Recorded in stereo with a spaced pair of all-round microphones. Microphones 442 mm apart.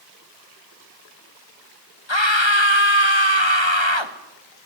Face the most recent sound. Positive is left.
turn(degrees=80)